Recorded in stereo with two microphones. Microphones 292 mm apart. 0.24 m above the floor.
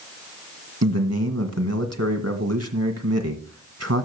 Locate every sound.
0.8 s a man speaking: 55° right (ahead or behind), 1.7 m